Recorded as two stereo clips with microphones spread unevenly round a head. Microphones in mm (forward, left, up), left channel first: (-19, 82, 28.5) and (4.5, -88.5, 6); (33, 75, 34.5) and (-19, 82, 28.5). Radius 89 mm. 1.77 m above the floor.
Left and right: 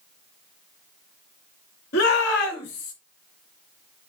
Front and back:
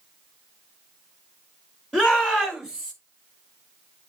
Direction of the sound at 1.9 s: 65° left.